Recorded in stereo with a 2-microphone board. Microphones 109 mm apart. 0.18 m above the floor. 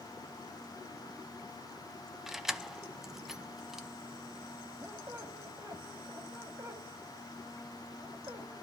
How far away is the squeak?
About 3 m.